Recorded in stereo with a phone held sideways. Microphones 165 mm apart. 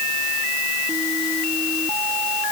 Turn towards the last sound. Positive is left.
No sound to turn to.